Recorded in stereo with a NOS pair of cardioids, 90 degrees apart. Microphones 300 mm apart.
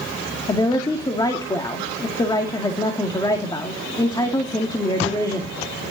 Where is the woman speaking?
15° left, 2 m.